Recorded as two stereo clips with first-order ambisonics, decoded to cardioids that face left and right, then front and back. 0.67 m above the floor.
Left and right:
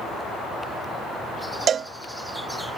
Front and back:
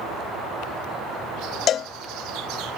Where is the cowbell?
40° right.